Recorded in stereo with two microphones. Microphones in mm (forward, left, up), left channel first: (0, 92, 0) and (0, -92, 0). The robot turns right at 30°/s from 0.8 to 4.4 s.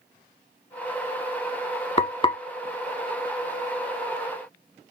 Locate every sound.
2.0 s frying: 35° left (ahead or behind), 0.9 m; by 2.4 s 25° left (ahead or behind), 0.9 m